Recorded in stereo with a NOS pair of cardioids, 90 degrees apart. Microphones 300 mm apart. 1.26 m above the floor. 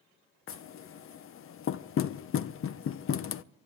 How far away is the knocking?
About 0.6 m.